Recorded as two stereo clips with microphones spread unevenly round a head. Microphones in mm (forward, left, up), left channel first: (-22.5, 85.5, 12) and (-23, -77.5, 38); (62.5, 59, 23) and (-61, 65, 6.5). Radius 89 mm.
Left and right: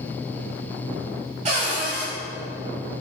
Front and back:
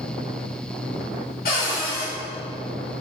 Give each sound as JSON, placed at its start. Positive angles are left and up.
{"t": 1.4, "sound": "a cupboard door", "azimuth_deg": -35, "distance_m": 3.0}